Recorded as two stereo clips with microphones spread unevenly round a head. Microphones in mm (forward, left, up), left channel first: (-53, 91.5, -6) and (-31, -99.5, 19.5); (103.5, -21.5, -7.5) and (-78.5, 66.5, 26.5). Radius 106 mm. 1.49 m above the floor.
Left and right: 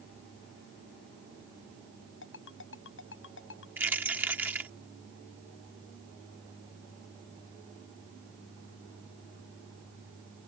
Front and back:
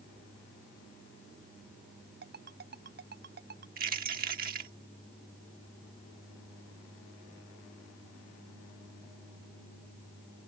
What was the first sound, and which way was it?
A ringtone, 115° left.